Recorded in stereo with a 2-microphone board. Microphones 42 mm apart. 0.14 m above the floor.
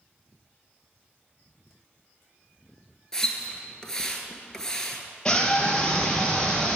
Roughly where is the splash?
Centre.